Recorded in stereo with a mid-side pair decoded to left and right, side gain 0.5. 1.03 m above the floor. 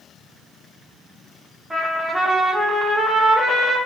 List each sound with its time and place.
1.7 s a trumpet: 15° right, 0.8 m